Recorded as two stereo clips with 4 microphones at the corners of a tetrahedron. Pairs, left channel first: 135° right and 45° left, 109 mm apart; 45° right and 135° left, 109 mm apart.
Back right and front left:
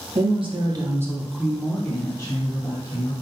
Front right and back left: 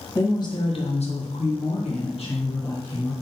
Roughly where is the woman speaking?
Ahead.